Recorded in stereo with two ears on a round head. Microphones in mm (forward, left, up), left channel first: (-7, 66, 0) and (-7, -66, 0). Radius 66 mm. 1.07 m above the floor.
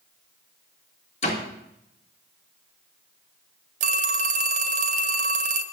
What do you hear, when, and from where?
1.2 s a door slam: 45° left (ahead or behind), 2 m
3.8 s a phone ringing: 50° right (ahead or behind), 0.6 m